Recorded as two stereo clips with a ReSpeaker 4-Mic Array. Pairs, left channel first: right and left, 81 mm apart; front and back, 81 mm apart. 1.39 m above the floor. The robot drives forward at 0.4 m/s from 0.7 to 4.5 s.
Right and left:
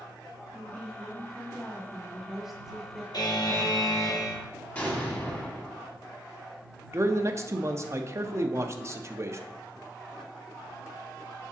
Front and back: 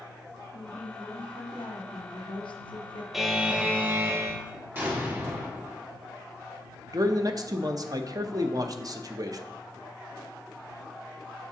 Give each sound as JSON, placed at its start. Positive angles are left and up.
{"t": 0.5, "sound": "a woman speaking", "azimuth_deg": 0, "distance_m": 1.8}
{"t": 3.1, "sound": "a buzzer", "azimuth_deg": -95, "distance_m": 0.8}
{"t": 4.8, "sound": "an explosion", "azimuth_deg": -140, "distance_m": 1.4}
{"t": 6.9, "sound": "a man speaking", "azimuth_deg": 140, "distance_m": 0.6}